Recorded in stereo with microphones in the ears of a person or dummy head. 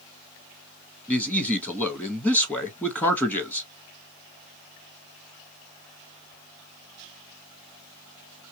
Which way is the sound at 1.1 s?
15° left (ahead or behind).